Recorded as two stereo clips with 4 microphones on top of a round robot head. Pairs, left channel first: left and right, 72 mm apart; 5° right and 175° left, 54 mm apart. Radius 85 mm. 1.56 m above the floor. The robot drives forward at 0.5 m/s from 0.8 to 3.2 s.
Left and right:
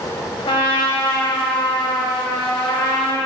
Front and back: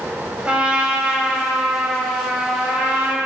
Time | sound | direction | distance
0.5 | a trumpet | 105° left | 10 m